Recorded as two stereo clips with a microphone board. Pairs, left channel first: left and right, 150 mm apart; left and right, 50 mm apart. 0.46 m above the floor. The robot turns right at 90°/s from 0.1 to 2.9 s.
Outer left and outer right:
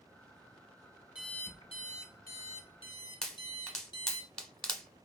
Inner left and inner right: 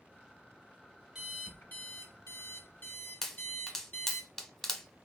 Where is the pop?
5° left (ahead or behind), 0.9 m.